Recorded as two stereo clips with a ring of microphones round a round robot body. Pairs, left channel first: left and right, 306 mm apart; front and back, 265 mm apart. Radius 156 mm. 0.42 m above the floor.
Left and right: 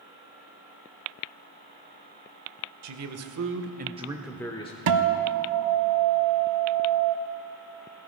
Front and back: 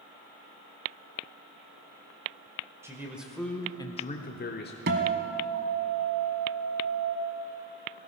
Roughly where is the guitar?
Behind right.